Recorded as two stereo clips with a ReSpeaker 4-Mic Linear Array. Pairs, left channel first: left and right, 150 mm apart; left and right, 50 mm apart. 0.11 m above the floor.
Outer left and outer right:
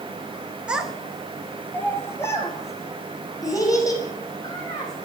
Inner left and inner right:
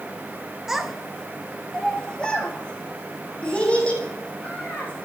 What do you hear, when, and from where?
0.7 s a child speaking: 5° right (ahead or behind), 0.7 m; by 5.1 s 25° left (ahead or behind), 3.5 m